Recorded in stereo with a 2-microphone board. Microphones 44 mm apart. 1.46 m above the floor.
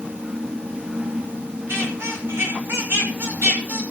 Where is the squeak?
70° right (ahead or behind), 6.5 m.